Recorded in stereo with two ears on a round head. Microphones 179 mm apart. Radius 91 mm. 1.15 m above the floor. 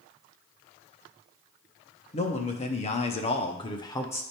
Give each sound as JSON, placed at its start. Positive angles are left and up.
{"t": 2.1, "sound": "a man speaking", "side_deg": 30, "distance_m": 1.1}